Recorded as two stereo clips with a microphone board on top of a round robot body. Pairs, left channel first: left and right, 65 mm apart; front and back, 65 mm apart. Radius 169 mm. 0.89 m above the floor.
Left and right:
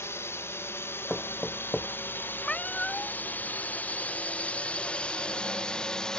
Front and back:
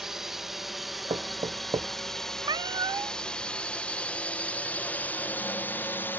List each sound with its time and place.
0.0 s a drone: 100° left; by 6.2 s 20° left
1.1 s knocking: 175° left
2.4 s a cat meowing: 165° left